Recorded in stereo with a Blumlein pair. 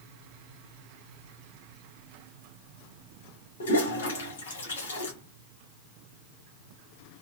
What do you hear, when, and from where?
3.6 s a toilet flushing: 60° left, 1.1 m